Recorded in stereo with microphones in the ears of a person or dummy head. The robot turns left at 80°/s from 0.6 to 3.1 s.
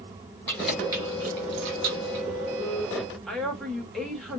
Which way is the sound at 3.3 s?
Centre (ahead or behind).